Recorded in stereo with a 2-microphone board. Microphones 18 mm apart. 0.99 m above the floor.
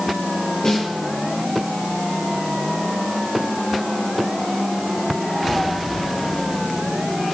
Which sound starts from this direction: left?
A snare drum, at 0.6 s.